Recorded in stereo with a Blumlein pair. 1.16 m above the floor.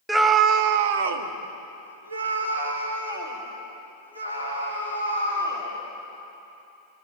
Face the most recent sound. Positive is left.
turn(degrees=-80)